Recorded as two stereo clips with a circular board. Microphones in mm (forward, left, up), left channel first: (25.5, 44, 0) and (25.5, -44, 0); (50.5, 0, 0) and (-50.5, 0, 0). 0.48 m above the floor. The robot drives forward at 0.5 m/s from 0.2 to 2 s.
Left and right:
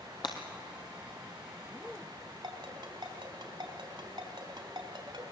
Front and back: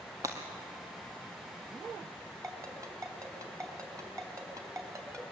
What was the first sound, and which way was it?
Breaking glass, 120° left.